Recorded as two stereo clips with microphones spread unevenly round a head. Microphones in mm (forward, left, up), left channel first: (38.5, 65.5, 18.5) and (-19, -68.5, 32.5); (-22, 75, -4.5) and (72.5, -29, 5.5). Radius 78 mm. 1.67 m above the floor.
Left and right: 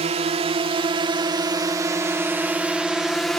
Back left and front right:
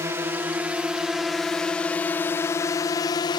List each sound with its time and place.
0.0 s a drone: 115° right; by 3.4 s 145° left